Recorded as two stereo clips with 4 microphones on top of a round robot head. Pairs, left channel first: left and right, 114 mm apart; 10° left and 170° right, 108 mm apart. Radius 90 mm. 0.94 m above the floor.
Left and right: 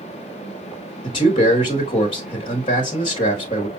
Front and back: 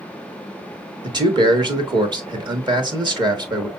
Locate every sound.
1.0 s a man speaking: 140° left, 1.9 m